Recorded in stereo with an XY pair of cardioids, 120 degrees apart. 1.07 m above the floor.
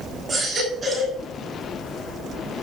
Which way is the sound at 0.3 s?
25° right.